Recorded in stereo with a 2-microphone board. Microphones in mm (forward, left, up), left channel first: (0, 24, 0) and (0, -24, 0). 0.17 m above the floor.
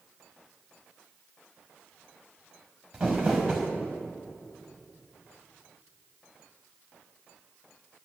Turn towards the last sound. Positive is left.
turn(degrees=-10)  # may be behind; listen again after turning